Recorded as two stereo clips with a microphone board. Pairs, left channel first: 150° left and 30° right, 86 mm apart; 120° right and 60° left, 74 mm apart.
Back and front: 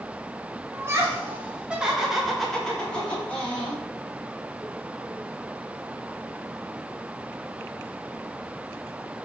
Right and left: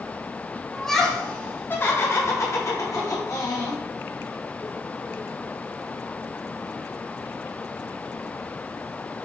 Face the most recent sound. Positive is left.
turn(degrees=-145)